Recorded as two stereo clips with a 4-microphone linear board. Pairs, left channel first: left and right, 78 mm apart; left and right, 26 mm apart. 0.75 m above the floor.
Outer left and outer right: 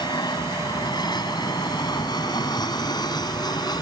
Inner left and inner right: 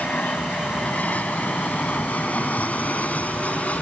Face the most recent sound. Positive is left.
turn(degrees=60)  # may be behind; listen again after turning